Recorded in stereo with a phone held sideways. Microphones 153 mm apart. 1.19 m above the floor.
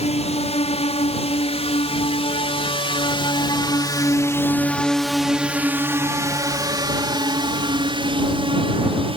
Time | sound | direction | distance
0.0 | a drone | 45° left (ahead or behind) | ?